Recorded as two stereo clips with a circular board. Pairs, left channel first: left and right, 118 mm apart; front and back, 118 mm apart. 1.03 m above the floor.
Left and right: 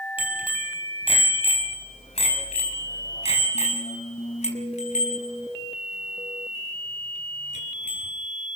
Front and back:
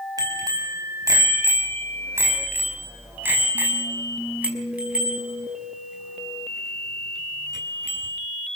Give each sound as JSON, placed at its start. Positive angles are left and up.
{"t": 0.2, "sound": "a bicycle bell", "azimuth_deg": 125, "distance_m": 5.0}